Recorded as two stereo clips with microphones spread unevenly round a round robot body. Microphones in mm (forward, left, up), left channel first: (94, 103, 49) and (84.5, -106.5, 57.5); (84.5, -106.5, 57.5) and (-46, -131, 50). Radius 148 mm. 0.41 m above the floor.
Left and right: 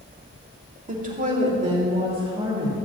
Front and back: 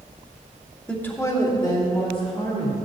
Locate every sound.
0.9 s a woman speaking: 75° right, 1.5 m; by 2.8 s 30° right, 3.5 m